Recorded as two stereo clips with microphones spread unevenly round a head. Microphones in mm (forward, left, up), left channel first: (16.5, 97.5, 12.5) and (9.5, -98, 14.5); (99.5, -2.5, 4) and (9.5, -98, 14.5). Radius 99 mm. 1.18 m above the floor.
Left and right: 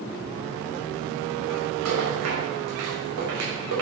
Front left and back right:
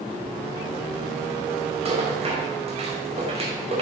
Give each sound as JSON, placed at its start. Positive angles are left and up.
{"t": 1.9, "sound": "a rattle", "azimuth_deg": -95, "distance_m": 5.5}